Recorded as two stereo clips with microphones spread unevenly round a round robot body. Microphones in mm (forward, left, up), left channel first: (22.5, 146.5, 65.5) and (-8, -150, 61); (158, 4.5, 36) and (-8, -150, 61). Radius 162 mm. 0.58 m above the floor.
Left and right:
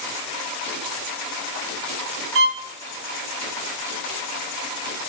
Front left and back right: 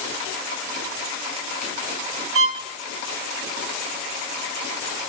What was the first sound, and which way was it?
A violin, 135° right.